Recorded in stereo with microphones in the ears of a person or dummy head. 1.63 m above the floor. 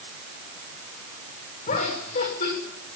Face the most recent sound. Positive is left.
turn(degrees=45)  # may be behind; listen again after turning